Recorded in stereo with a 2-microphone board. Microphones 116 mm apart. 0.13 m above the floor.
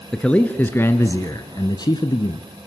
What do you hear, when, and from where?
0.1 s a man speaking: 5° left (ahead or behind), 1.6 m; by 2.4 s 40° left (ahead or behind), 1.5 m